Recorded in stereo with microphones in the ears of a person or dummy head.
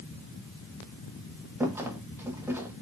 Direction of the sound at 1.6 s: 10° right (ahead or behind).